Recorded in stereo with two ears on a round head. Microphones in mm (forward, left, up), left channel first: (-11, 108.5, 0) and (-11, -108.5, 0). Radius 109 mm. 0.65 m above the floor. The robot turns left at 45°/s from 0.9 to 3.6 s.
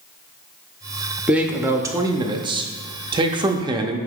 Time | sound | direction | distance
1.3 | a man speaking | 5° right (ahead or behind) | 0.6 m